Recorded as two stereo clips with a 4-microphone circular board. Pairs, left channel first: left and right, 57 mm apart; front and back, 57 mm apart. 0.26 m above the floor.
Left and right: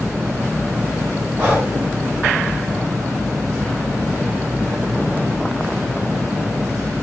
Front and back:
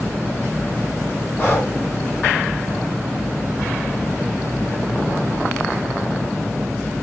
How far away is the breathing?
About 2 m.